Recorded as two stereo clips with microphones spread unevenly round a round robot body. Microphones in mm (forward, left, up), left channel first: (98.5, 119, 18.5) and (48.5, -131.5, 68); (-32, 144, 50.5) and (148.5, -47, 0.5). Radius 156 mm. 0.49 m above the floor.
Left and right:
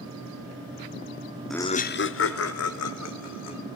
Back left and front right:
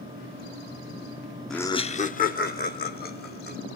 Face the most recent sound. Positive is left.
turn(degrees=80)